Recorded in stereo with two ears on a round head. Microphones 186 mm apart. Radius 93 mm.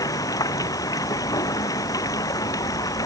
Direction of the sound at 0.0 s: 15° left (ahead or behind).